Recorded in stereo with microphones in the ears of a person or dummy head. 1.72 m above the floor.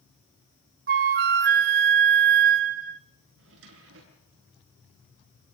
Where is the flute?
40° right (ahead or behind), 0.7 m.